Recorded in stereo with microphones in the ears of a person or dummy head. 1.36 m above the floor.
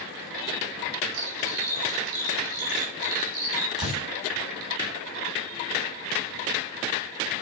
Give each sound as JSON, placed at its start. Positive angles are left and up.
{"t": 1.1, "sound": "cutlery clinking", "side_deg": -75, "distance_m": 2.0}
{"t": 3.8, "sound": "a door slam", "side_deg": -30, "distance_m": 5.5}